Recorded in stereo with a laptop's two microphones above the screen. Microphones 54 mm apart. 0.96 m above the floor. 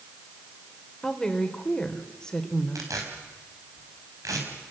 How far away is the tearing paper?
About 5 m.